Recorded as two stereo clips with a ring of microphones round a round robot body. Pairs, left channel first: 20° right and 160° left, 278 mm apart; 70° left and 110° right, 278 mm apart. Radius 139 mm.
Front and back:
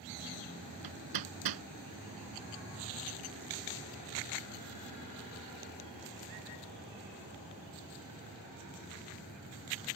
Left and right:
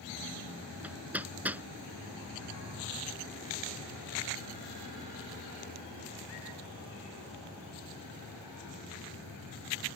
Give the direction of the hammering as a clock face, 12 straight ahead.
7 o'clock.